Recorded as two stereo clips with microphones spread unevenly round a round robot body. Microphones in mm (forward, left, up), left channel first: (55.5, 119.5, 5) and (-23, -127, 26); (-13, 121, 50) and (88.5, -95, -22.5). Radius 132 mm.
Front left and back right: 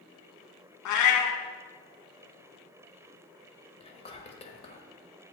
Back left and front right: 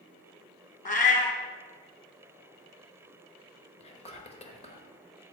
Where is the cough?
I don't hear a cough.